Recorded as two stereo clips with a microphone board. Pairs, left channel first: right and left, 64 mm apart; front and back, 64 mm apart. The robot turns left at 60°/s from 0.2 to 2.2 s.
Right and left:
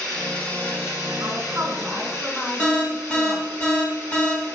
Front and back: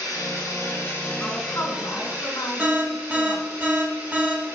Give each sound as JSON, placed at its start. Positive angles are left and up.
{"t": 0.0, "sound": "running water", "azimuth_deg": -5, "distance_m": 3.0}
{"t": 1.2, "sound": "a woman speaking", "azimuth_deg": 60, "distance_m": 2.5}
{"t": 2.6, "sound": "an alarm", "azimuth_deg": -145, "distance_m": 2.5}